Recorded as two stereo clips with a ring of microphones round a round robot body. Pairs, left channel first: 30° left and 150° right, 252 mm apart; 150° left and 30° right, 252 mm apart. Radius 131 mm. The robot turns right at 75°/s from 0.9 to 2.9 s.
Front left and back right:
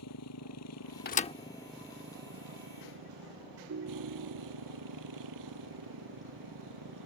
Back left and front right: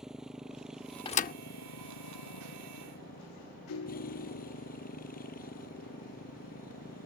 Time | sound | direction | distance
0.0 | a motorcycle | 60° left | ?
1.1 | a thud | 80° left | ?
3.7 | a ringtone | 175° left | ?